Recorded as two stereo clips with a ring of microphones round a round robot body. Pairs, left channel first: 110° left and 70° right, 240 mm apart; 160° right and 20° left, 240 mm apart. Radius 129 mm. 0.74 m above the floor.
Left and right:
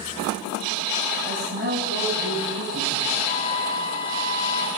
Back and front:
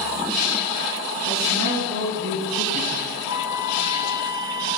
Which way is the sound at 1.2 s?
10° right.